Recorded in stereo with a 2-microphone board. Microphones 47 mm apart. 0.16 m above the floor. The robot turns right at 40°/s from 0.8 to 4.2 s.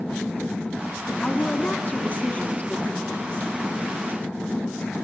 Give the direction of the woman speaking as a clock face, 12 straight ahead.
10 o'clock.